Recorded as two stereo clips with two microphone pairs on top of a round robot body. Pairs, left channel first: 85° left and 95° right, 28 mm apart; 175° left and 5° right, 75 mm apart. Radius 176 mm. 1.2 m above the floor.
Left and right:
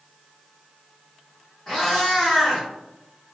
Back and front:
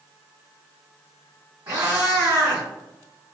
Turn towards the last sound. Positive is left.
turn(degrees=5)